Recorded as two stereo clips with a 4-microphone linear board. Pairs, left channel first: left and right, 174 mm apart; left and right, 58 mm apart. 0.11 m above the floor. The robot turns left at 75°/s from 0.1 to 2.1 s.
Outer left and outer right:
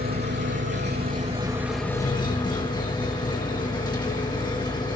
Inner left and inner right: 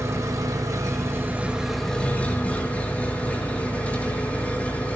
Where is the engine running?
55° right, 3.5 m; by 5.0 s 155° left, 3.5 m.